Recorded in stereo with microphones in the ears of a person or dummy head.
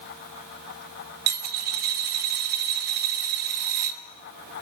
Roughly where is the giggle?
No giggle in this recording.